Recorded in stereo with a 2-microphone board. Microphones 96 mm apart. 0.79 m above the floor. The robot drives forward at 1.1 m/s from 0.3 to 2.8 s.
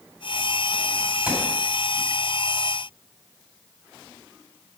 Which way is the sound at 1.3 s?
15° right (ahead or behind).